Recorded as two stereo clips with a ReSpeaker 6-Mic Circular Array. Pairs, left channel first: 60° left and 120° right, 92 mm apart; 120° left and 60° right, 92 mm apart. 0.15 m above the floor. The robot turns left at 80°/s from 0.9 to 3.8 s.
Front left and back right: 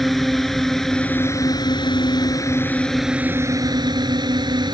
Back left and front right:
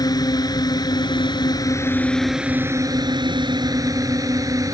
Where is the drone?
150° left; by 4.7 s 100° right.